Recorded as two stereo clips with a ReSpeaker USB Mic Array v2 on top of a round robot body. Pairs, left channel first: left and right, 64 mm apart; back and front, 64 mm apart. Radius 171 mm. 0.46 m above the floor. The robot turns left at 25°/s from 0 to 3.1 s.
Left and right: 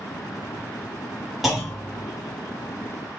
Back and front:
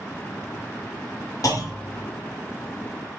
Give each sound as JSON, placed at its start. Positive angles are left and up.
{"t": 1.4, "sound": "a clunk", "azimuth_deg": 180, "distance_m": 2.0}